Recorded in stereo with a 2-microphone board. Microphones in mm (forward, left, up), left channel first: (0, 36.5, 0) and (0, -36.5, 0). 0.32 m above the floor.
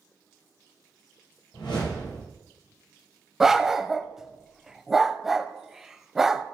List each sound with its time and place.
1.5 s a whoosh: 80° left, 5.5 m
3.4 s a dog barking: 5° right (ahead or behind), 0.5 m